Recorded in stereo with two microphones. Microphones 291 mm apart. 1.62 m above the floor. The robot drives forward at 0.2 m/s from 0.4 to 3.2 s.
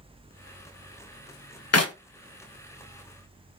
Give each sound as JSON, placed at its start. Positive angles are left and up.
{"t": 1.7, "sound": "a clap", "side_deg": 55, "distance_m": 0.6}